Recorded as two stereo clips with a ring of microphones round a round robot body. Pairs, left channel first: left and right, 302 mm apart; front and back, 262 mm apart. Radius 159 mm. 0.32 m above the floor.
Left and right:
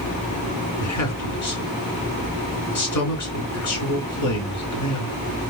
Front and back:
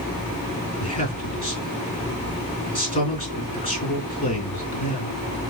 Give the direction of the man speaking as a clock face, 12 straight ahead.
10 o'clock.